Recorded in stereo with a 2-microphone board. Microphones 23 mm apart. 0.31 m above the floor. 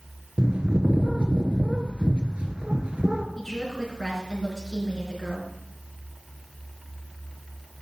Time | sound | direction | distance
0.4 | a bird | 60° right (ahead or behind) | 1.3 m
3.4 | a woman speaking | centre (ahead or behind) | 4.5 m